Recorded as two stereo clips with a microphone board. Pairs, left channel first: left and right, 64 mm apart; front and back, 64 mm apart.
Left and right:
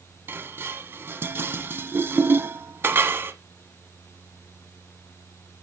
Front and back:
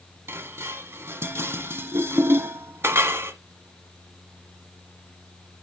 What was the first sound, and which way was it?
Dishes clattering, 140° right.